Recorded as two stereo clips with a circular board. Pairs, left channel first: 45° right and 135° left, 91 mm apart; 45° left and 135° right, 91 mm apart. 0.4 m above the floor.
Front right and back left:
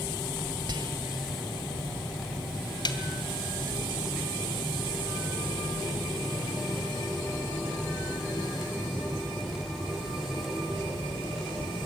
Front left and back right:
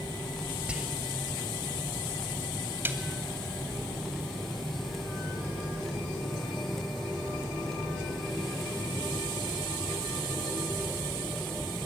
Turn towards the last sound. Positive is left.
turn(degrees=-70)